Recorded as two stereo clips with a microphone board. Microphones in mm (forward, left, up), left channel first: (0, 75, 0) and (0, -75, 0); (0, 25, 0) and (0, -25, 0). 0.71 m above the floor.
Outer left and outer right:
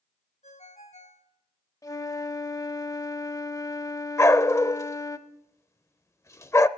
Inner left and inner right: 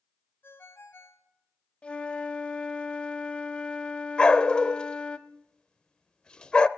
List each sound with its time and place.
0.4 s a ringtone: 50° left (ahead or behind), 2.5 m
1.8 s a flute: 20° left (ahead or behind), 0.7 m
4.2 s a dog barking: 20° left (ahead or behind), 0.5 m